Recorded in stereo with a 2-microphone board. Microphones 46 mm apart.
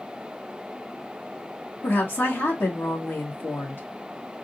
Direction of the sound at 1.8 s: 55° left (ahead or behind).